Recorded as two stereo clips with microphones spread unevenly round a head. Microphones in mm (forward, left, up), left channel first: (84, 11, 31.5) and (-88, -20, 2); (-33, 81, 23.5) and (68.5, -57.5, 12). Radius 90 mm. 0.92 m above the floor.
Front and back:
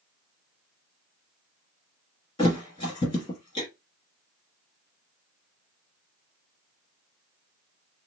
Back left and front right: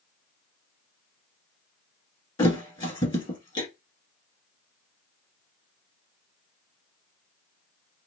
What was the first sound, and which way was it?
A thud, 65° left.